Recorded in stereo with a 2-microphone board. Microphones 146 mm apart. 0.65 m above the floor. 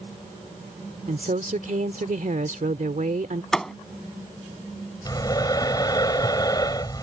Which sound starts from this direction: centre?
A thud, at 3.5 s.